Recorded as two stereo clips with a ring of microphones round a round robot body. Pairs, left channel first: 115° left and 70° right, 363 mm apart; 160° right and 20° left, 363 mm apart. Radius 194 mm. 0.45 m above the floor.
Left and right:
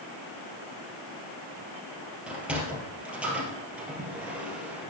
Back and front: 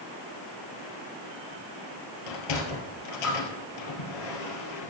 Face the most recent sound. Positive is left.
turn(degrees=-155)